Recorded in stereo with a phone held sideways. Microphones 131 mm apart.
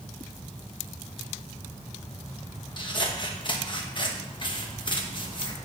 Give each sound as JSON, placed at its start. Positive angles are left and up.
{"t": 2.8, "sound": "scissors", "side_deg": 40, "distance_m": 1.0}